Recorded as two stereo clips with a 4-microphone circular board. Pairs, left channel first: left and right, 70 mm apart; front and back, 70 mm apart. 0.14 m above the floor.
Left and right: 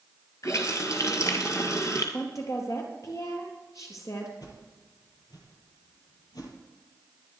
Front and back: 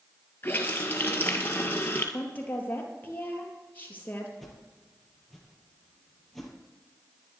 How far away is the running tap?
About 2.0 m.